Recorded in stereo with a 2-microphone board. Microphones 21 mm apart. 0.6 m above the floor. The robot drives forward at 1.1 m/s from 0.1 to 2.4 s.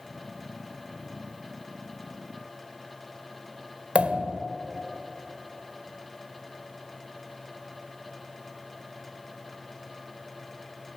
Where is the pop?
85° right, 0.9 m.